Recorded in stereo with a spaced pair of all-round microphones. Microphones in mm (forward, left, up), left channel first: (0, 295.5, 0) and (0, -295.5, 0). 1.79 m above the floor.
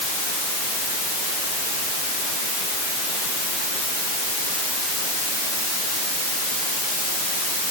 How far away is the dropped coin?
No dropped coin in this recording.